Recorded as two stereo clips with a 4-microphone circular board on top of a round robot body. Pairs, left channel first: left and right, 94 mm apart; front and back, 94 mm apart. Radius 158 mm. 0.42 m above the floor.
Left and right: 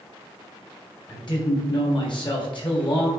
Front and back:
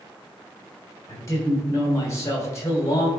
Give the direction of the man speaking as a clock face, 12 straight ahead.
10 o'clock.